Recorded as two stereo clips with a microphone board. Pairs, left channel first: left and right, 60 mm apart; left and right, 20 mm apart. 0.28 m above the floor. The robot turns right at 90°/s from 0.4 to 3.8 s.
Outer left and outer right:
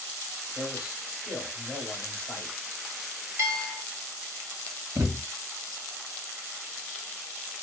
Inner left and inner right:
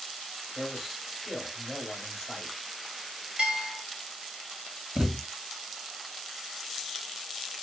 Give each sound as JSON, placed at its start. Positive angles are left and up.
{"t": 0.6, "sound": "a man speaking", "side_deg": -25, "distance_m": 1.5}
{"t": 3.4, "sound": "a bell", "azimuth_deg": -135, "distance_m": 1.3}
{"t": 5.0, "sound": "a thud", "side_deg": -85, "distance_m": 1.3}